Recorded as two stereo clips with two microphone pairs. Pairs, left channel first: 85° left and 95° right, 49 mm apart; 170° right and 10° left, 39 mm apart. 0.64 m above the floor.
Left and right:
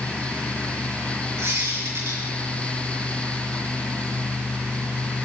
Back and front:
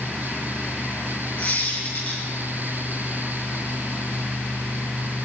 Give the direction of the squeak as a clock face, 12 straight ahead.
4 o'clock.